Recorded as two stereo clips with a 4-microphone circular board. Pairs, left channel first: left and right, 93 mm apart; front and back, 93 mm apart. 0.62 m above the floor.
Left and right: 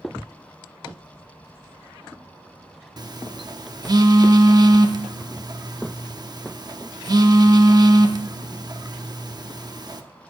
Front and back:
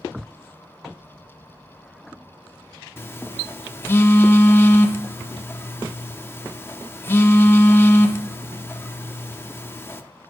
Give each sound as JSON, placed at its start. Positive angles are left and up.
{"t": 3.0, "sound": "a phone buzzing", "azimuth_deg": -60, "distance_m": 0.6}